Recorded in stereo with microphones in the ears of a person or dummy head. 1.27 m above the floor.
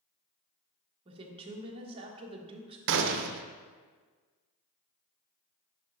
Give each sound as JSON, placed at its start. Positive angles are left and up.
{"t": 1.1, "sound": "a woman speaking", "side_deg": -35, "distance_m": 1.2}
{"t": 2.9, "sound": "a gunshot", "side_deg": -70, "distance_m": 0.7}